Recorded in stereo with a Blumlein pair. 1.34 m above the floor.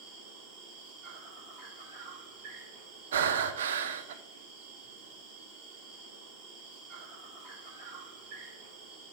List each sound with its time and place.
0.0 s an insect: 35° right, 2.0 m
3.1 s breathing: 60° right, 0.5 m